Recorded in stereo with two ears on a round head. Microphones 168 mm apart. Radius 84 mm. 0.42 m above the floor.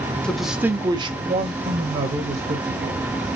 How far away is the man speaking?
About 0.9 m.